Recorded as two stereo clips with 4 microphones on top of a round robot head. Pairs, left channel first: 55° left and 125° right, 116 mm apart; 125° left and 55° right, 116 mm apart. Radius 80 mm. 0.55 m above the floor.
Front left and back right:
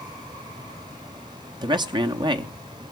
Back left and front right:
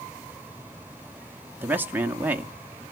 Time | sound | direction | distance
1.6 | a man speaking | 120° right | 0.8 m